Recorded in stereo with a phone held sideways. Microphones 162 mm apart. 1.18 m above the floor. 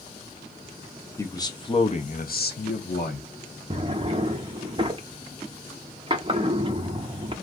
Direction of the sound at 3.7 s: 30° right (ahead or behind).